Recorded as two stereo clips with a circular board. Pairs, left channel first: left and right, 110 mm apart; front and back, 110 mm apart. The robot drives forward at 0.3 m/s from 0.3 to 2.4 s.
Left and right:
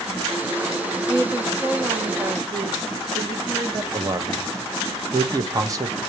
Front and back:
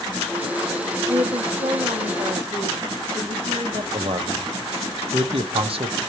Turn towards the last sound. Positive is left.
turn(degrees=-150)